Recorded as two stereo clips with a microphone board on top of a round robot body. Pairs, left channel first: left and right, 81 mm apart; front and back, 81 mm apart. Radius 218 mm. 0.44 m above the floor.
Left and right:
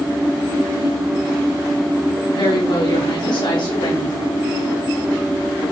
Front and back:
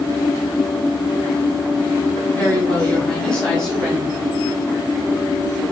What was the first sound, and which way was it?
A woman speaking, 70° left.